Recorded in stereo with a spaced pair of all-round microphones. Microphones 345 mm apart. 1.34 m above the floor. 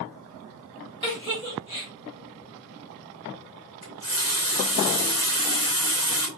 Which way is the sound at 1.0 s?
10° left (ahead or behind).